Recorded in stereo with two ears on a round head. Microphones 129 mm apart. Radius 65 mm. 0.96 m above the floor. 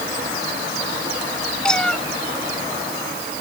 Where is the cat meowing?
5° left (ahead or behind).